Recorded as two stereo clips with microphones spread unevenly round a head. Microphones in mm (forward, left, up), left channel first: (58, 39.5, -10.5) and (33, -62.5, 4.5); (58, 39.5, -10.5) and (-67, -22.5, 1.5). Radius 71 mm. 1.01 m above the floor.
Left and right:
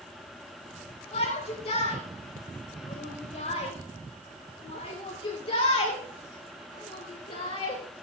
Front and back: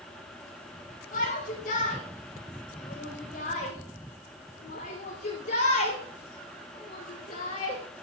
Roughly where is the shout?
Ahead left.